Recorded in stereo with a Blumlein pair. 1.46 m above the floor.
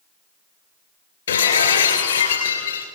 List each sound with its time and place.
1.3 s breaking glass: 65° left, 3 m